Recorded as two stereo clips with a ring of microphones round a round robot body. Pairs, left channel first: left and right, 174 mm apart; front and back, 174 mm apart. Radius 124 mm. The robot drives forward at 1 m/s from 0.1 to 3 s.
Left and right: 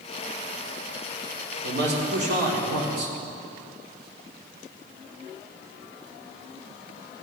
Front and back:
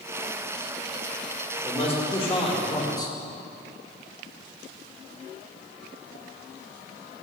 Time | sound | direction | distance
1.6 | a man speaking | 70° right | 2.5 m